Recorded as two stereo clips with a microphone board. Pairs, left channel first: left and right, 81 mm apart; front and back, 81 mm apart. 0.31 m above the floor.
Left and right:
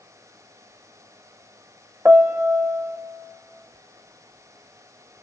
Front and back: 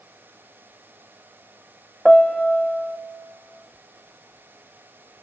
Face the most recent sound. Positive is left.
turn(degrees=-85)